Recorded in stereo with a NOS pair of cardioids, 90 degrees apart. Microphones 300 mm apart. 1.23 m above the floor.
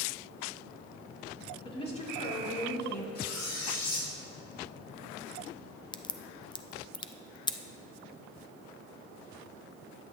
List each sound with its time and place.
1.6 s a woman speaking: 15° left, 3 m; by 3.0 s 40° left, 3 m
3.1 s cutlery clinking: 60° left, 3.5 m
5.9 s a crack: 15° left, 0.5 m